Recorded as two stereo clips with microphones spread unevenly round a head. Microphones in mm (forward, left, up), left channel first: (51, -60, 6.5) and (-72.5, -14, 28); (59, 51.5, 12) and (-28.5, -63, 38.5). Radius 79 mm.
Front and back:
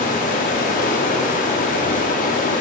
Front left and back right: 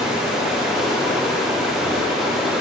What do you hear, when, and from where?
0.0 s running water: 45° right, 0.9 m